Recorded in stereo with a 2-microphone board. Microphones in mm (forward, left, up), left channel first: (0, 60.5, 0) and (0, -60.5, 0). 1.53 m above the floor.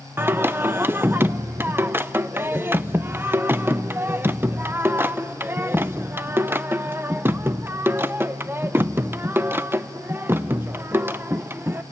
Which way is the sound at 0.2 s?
15° right (ahead or behind).